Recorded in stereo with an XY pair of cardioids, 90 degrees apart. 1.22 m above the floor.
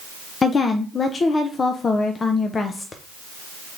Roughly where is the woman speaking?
Ahead left.